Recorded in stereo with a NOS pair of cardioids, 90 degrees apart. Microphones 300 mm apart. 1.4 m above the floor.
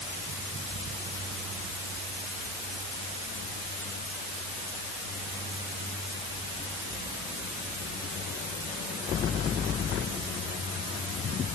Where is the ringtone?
No ringtone in this recording.